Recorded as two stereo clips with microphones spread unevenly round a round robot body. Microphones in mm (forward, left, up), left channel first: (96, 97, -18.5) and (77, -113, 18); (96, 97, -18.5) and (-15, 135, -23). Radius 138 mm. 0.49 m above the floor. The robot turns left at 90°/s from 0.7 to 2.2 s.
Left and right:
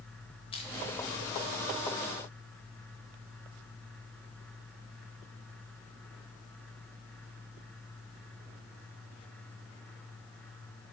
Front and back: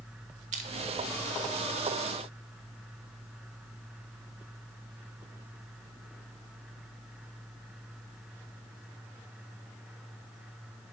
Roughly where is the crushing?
Behind left.